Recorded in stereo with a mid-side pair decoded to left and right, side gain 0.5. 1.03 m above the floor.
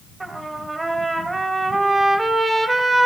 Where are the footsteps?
No footsteps in this recording.